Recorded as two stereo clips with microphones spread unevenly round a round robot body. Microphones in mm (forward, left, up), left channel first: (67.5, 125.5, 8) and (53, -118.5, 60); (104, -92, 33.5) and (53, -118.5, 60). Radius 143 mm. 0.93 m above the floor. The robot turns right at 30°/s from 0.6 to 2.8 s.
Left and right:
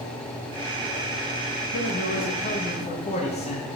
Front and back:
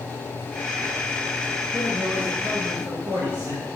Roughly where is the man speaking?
Left.